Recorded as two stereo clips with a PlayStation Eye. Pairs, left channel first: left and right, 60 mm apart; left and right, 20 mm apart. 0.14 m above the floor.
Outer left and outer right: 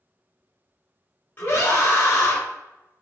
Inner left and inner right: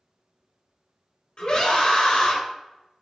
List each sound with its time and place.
1.4 s a scream: 25° left (ahead or behind), 1.3 m